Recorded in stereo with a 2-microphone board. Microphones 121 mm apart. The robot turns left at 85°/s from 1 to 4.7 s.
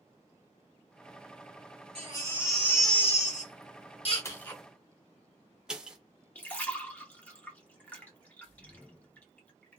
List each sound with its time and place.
1.9 s a baby crying: 130° right, 0.9 m; by 4.6 s 5° left, 0.9 m
4.2 s a pop: 20° left (ahead or behind), 0.6 m; by 6.0 s 5° right (ahead or behind), 0.6 m
6.3 s a splash: 10° left (ahead or behind), 0.8 m